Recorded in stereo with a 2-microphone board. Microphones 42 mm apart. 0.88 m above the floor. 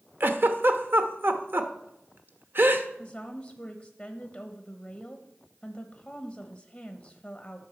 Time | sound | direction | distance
0.2 | a giggle | 55° right (ahead or behind) | 0.9 m
3.0 | a woman speaking | 15° left (ahead or behind) | 1.0 m